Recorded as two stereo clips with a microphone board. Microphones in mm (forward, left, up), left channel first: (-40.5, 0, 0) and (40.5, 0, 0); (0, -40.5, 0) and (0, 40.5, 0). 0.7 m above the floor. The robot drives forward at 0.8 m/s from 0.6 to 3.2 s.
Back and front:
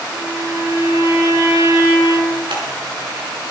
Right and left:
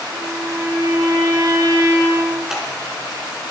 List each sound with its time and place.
0.1 s a violin: 40° left, 6 m; by 2.4 s 50° left, 5 m
2.5 s scissors: 5° left, 4.5 m